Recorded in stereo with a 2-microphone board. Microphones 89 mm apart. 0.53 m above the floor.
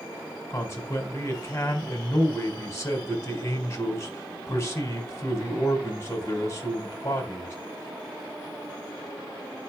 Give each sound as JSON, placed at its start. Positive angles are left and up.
{"t": 0.5, "sound": "a man speaking", "side_deg": 30, "distance_m": 3.5}